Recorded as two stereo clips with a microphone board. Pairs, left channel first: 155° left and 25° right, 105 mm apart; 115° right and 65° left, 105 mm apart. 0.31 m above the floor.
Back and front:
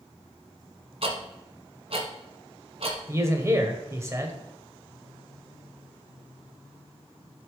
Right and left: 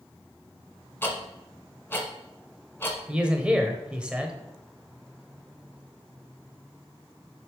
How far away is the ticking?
About 1.4 m.